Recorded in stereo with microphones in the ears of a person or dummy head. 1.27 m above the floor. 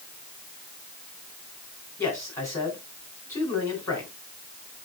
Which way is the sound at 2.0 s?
15° left (ahead or behind).